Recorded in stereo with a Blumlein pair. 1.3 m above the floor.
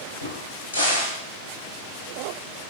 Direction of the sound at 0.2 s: 65° left.